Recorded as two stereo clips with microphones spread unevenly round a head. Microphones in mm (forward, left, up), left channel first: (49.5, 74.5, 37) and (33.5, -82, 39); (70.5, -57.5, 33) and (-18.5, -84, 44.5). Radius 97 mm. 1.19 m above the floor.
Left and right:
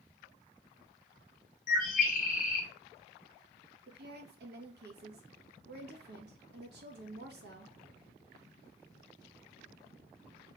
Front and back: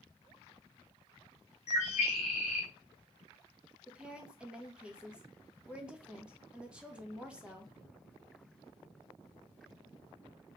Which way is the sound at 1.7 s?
55° left.